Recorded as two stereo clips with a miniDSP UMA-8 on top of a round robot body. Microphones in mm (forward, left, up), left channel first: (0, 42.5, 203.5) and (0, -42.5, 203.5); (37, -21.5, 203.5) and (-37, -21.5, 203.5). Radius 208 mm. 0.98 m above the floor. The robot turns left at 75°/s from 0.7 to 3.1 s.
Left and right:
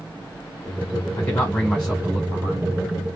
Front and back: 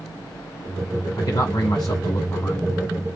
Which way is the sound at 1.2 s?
45° left.